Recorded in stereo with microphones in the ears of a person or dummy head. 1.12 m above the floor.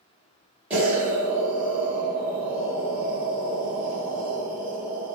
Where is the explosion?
5° right (ahead or behind), 0.9 m.